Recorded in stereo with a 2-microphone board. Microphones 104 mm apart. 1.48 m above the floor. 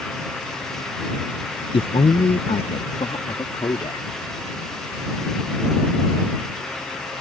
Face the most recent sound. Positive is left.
turn(degrees=55)  # may be behind; listen again after turning